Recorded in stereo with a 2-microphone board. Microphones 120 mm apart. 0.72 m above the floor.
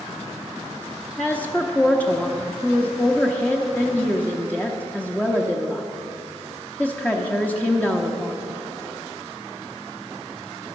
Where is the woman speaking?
15° left (ahead or behind), 0.8 m.